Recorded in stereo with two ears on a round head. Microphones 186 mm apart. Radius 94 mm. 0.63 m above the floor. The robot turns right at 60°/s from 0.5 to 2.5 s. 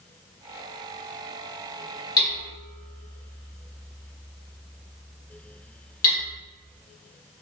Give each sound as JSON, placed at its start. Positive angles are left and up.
{"t": 2.2, "sound": "hammering", "side_deg": 20, "distance_m": 1.3}